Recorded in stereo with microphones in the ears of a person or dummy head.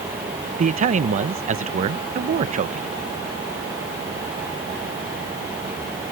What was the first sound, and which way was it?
A man speaking, 45° right (ahead or behind).